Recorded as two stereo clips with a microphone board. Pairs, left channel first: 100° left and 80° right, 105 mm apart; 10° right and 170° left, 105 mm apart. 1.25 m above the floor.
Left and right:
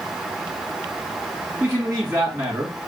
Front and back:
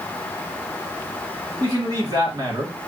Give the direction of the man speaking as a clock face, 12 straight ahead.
5 o'clock.